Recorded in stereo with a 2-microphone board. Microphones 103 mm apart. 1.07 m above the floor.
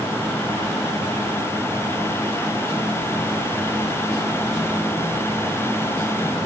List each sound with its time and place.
Only background noise.